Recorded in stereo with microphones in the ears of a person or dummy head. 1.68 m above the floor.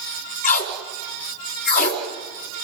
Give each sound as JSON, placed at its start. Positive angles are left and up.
{"t": 0.4, "sound": "tape being pulled", "side_deg": 50, "distance_m": 3.5}